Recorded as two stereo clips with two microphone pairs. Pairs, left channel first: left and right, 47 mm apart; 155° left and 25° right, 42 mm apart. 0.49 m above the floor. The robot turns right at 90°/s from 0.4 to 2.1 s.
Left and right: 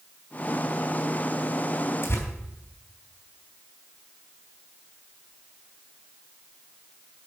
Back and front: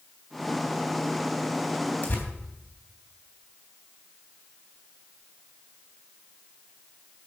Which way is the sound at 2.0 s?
100° left.